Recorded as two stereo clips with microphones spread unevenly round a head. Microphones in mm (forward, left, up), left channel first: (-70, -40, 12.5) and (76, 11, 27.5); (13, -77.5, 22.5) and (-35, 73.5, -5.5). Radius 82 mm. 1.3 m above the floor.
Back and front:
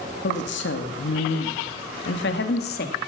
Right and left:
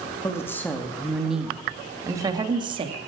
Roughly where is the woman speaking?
Behind right.